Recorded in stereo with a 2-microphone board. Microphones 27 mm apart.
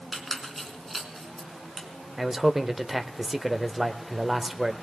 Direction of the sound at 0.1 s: Centre (ahead or behind).